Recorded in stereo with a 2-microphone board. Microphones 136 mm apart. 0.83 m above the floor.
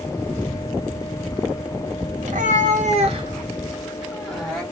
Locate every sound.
2.2 s a cat meowing: 70° right (ahead or behind), 1.2 m; by 4.6 s 5° left (ahead or behind), 1.6 m